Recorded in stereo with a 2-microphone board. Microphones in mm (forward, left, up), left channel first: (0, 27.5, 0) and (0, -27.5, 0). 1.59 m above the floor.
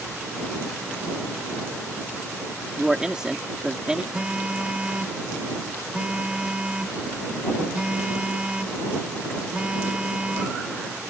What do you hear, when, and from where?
2.8 s a man speaking: 15° right (ahead or behind)
4.1 s a phone buzzing: 20° right (ahead or behind)